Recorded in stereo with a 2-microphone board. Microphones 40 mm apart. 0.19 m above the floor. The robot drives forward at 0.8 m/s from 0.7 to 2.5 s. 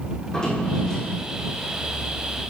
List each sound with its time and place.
0.2 s a drawer: 15° left (ahead or behind), 4 m